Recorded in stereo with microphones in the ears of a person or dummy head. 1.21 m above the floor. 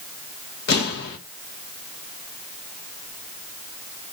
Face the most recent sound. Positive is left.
turn(degrees=50)  # may be behind; listen again after turning